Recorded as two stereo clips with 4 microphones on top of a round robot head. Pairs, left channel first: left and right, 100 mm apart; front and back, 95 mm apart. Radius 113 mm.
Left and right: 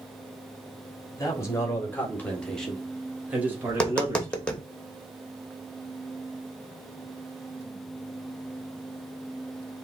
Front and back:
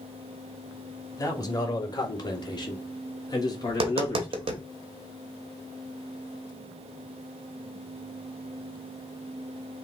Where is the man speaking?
40° left, 2 m; by 4.5 s 50° right, 1.8 m.